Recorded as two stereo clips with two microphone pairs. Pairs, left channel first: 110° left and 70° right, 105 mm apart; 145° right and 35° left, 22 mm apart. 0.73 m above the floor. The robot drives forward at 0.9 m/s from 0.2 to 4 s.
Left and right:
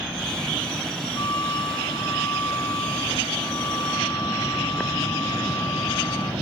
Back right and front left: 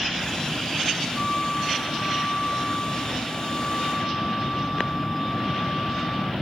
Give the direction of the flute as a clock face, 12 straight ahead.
7 o'clock.